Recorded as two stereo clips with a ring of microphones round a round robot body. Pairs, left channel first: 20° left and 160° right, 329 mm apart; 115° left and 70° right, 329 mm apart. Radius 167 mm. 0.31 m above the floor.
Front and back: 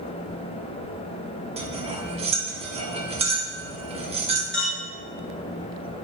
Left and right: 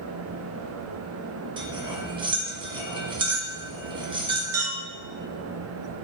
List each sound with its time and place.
1.6 s cutlery clinking: 120° right, 0.5 m
4.5 s a clink: 65° right, 1.0 m